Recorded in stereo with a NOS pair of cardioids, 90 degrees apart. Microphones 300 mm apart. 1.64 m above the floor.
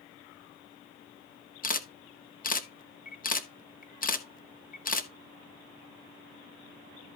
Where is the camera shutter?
30° left, 1.4 m.